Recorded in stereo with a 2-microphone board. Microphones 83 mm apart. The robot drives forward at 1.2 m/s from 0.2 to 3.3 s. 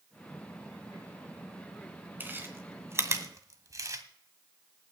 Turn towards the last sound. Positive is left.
turn(degrees=-40)  # may be behind; listen again after turning